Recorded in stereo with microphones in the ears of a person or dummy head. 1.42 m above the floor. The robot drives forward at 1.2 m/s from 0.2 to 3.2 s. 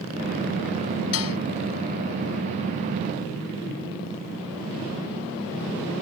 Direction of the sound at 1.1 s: 80° left.